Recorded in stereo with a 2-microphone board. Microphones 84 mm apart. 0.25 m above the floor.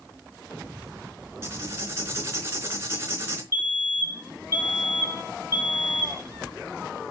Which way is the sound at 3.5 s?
35° right (ahead or behind).